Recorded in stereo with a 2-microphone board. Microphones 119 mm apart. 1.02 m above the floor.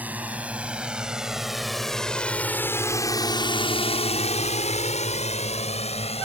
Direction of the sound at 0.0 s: 15° right (ahead or behind).